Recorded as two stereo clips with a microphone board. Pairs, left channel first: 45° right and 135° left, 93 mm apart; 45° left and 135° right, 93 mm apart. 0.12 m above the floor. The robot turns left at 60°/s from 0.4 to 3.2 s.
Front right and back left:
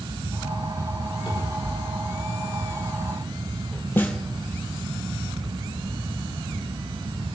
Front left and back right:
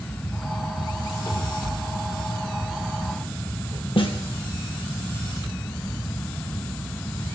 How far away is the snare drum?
About 2.5 m.